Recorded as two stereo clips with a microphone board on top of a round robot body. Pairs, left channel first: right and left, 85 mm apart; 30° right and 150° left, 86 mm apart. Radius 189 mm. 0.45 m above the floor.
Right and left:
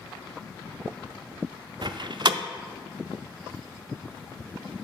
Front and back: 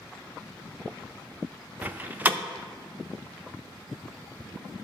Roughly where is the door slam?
Left.